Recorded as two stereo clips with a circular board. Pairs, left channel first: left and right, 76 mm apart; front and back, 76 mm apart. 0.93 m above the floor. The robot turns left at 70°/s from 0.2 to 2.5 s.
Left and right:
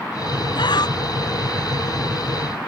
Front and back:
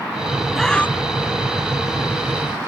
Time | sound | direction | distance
0.6 | breathing | 90° left | ?